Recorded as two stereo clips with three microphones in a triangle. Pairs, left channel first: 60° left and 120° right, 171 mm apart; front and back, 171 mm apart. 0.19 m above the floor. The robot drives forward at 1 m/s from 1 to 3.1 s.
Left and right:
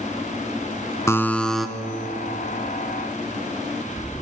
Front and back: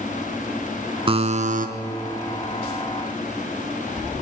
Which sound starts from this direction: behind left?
A buzzer, at 1.1 s.